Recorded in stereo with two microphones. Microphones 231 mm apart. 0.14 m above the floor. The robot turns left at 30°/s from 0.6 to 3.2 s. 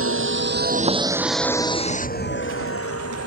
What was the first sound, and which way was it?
A vehicle, 65° right (ahead or behind).